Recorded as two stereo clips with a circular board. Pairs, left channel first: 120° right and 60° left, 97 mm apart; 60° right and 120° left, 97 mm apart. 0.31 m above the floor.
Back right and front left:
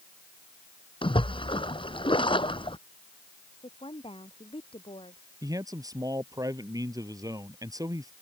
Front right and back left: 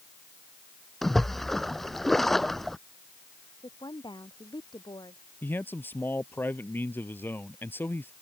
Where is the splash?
145° right.